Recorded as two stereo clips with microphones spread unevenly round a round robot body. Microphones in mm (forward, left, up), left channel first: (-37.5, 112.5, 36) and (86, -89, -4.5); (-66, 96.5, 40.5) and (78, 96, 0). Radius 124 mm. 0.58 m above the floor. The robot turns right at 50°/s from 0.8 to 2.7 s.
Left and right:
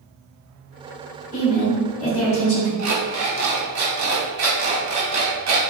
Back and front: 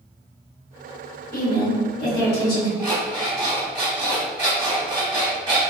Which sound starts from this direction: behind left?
A woman speaking, at 1.3 s.